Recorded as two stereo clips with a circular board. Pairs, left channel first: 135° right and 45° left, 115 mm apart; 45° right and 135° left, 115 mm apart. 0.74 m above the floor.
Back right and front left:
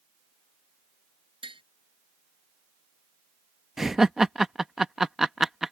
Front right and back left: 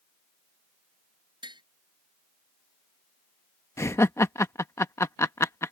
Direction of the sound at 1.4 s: 85° left.